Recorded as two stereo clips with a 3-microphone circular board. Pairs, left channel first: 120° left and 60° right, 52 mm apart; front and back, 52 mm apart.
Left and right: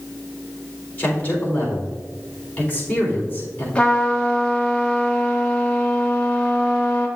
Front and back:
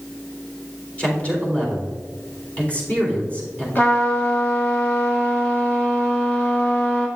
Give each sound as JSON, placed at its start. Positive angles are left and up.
{"t": 1.0, "sound": "a man speaking", "azimuth_deg": 65, "distance_m": 3.5}
{"t": 3.8, "sound": "a trumpet", "azimuth_deg": 55, "distance_m": 1.7}